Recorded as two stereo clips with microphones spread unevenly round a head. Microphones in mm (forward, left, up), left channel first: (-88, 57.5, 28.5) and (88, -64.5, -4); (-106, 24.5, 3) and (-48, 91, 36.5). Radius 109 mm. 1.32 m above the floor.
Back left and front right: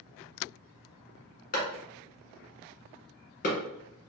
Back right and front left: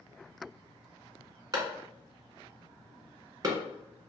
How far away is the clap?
About 1.2 m.